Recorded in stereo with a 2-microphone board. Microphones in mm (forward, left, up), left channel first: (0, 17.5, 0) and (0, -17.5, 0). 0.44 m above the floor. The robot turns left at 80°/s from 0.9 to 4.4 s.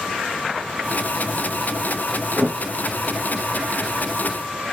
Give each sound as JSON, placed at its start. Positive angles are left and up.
{"t": 2.4, "sound": "a thud", "side_deg": -70, "distance_m": 5.0}